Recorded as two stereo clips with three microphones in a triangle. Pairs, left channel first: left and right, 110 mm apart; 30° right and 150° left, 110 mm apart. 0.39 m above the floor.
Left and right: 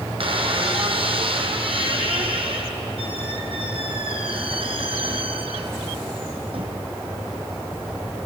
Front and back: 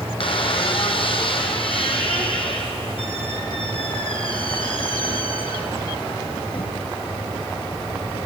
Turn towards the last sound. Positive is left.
turn(degrees=-60)